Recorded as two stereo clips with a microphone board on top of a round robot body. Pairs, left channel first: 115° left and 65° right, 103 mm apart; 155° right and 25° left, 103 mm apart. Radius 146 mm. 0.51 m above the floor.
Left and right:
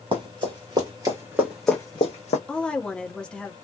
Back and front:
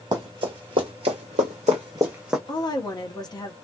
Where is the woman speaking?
170° right, 1.3 m.